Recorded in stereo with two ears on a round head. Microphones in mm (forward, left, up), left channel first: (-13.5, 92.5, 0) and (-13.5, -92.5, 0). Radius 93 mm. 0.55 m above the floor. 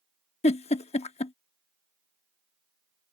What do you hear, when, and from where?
0.4 s a giggle: 30° left (ahead or behind)